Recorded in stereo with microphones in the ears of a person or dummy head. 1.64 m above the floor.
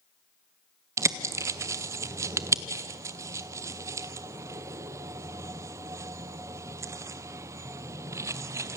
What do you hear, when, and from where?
1.0 s a bird: 15° right (ahead or behind), 0.8 m